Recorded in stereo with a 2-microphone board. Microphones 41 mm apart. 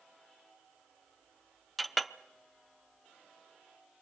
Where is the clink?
Centre (ahead or behind), 0.6 m.